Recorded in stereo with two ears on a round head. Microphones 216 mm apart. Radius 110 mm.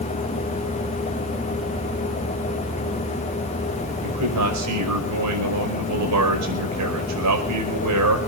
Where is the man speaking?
85° right, 5 m.